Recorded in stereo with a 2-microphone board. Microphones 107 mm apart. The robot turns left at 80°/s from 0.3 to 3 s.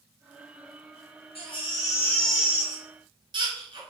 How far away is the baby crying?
About 1.3 m.